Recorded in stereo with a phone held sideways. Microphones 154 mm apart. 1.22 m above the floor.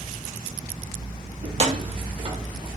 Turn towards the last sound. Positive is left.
turn(degrees=-35)  # may be behind; listen again after turning